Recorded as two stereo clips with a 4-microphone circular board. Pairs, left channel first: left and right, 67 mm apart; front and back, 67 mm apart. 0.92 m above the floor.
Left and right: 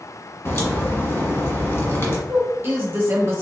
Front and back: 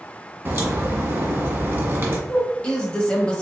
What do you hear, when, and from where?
0.5 s a crack: 125° left, 1.3 m
2.3 s a woman speaking: 65° right, 1.0 m